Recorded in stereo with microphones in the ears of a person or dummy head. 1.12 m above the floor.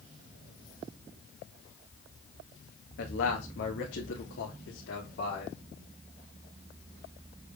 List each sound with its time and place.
3.0 s a man speaking: 55° left (ahead or behind), 2 m; by 5.6 s 70° left (ahead or behind), 3.5 m